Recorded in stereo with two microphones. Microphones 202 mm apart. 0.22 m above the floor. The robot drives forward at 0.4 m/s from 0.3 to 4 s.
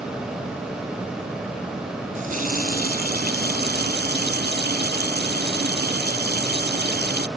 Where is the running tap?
40° right (ahead or behind); by 7.3 s 50° right (ahead or behind).